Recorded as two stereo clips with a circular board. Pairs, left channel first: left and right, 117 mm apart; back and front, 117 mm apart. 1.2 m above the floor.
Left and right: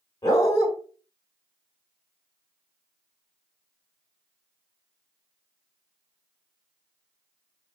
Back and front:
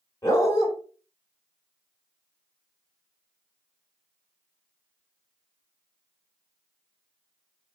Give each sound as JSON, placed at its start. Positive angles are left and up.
{"t": 0.2, "sound": "a dog barking", "azimuth_deg": 135, "distance_m": 1.2}